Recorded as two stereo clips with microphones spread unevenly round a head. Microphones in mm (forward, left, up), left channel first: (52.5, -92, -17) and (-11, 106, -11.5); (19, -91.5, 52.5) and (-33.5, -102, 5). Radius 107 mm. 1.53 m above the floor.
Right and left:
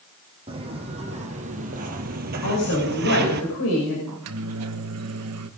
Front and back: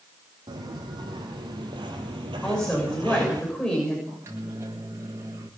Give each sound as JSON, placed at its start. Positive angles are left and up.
{"t": 0.5, "sound": "footsteps", "azimuth_deg": 170, "distance_m": 4.0}
{"t": 2.4, "sound": "a woman speaking", "azimuth_deg": -60, "distance_m": 6.5}
{"t": 4.1, "sound": "a microwave", "azimuth_deg": 125, "distance_m": 1.5}